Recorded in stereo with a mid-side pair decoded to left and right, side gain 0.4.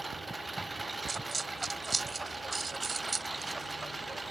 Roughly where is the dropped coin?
Ahead right.